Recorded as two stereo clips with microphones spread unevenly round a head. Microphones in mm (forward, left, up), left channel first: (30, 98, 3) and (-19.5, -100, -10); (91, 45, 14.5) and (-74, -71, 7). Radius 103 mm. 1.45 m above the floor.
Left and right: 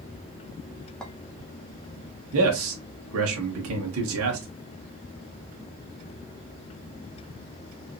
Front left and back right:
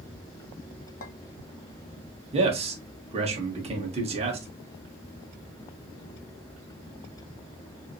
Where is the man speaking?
85° right, 1.5 m.